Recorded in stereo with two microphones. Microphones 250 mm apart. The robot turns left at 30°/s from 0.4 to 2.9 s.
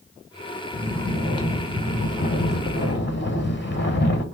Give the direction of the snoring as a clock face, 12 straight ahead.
6 o'clock.